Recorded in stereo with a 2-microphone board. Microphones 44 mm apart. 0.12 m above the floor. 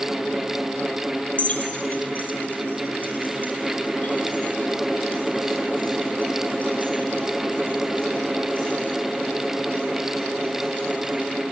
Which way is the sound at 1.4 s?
35° left (ahead or behind).